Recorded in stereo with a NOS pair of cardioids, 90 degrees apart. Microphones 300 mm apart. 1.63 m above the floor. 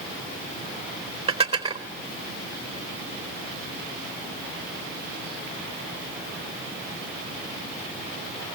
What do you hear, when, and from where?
1.3 s dishes clattering: 20° right, 4 m